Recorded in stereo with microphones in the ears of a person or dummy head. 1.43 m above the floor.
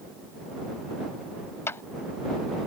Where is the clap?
20° left (ahead or behind).